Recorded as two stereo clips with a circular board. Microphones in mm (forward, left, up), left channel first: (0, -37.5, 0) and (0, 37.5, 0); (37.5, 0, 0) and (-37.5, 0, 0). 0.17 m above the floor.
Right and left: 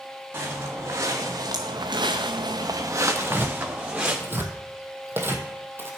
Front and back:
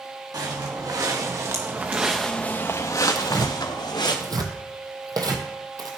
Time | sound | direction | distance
0.3 | footsteps | 150° left | 2.5 m
3.1 | tearing paper | 150° left | 1.1 m